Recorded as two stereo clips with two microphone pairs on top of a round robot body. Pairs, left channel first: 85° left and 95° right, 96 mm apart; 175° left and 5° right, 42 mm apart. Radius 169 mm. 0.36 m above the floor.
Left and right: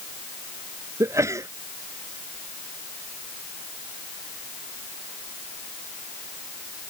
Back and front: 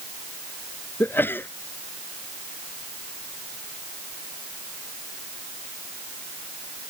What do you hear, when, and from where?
1.0 s a sneeze: 150° right